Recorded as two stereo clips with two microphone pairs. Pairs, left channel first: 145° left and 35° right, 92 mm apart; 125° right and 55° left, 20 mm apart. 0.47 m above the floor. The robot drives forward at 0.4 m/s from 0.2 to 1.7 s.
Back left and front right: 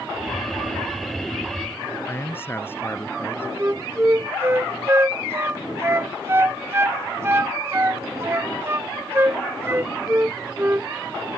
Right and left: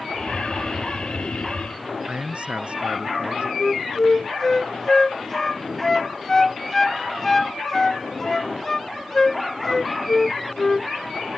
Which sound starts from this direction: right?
A flute, at 3.6 s.